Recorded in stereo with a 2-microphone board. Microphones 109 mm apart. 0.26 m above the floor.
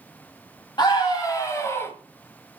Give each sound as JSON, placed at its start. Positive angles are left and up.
{"t": 0.8, "sound": "a scream", "side_deg": 45, "distance_m": 1.2}